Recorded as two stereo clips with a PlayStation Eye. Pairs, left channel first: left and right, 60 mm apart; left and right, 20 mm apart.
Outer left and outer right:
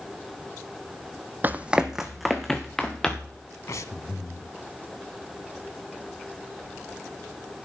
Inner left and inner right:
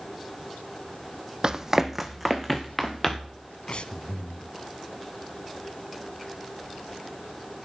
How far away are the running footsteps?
About 0.7 m.